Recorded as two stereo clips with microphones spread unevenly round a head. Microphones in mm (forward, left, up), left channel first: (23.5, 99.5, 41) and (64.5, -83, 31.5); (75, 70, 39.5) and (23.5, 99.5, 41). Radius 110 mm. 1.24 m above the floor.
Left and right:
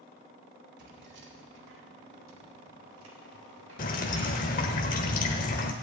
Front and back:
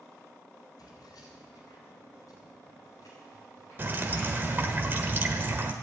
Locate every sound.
0.8 s keys jangling: 45° right, 2.5 m; by 4.6 s 115° right, 4 m
3.8 s dripping: 125° left, 1.1 m